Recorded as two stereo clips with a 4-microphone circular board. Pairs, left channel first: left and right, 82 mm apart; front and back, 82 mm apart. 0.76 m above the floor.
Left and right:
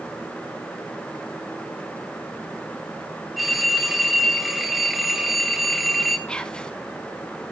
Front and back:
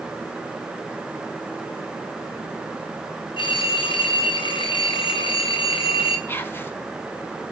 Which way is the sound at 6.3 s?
25° left.